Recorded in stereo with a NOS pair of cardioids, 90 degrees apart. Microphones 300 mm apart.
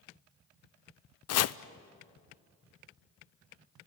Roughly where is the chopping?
Ahead left.